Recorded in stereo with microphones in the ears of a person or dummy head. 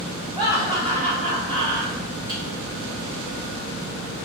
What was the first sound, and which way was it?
Laughter, 5° right (ahead or behind).